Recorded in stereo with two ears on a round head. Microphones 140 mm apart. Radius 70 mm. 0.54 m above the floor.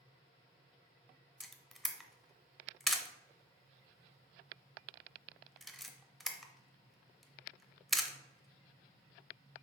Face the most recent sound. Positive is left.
turn(degrees=0)  # may be behind; listen again after turning